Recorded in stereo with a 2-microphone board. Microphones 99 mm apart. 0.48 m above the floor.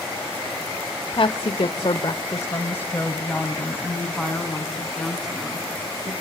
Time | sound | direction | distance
1.1 | a woman speaking | 50° left (ahead or behind) | 1.5 m